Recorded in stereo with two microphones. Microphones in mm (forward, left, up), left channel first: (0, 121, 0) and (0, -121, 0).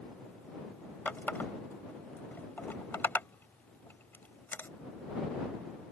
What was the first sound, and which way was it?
A running tap, 10° left (ahead or behind).